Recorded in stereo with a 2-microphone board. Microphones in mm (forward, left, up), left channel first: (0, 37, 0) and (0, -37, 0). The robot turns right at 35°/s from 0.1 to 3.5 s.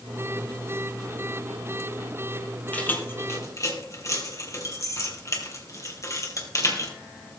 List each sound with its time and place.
2.7 s keys jangling: 20° left (ahead or behind), 3 m; by 6.9 s 45° left (ahead or behind), 3 m